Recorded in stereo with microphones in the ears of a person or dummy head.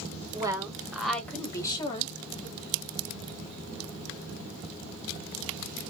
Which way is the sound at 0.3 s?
20° right (ahead or behind).